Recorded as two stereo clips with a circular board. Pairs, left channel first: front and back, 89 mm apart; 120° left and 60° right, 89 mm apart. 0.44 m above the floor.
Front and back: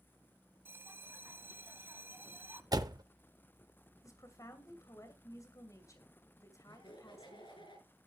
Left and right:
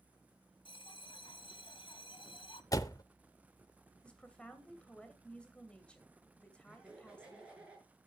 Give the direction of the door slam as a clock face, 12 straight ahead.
7 o'clock.